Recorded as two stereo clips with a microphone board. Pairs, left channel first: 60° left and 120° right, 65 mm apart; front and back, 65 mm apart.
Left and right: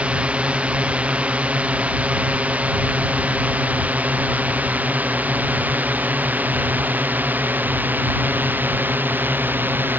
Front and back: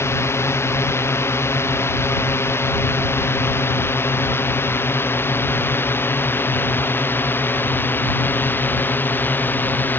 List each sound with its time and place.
0.0 s a drone: 50° right; by 10.0 s 60° right